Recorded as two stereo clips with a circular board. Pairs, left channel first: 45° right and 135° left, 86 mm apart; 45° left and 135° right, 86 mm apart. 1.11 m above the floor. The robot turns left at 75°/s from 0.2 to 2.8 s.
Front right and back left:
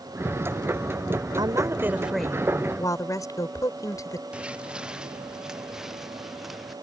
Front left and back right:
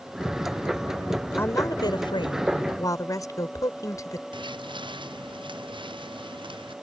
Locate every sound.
1.4 s a woman speaking: 105° left; by 4.2 s straight ahead
4.3 s footsteps: 150° right; by 6.7 s 135° right